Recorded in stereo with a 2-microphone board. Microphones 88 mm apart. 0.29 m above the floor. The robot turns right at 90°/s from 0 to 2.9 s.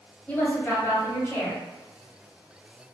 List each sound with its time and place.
0.3 s a woman speaking: 35° left, 1.8 m; by 1.6 s 155° left, 1.8 m